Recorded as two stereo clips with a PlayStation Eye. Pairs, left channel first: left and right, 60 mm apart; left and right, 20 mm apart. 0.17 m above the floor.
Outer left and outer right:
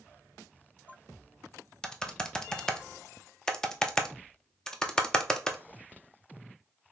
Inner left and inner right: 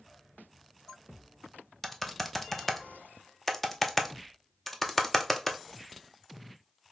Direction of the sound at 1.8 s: 10° left (ahead or behind).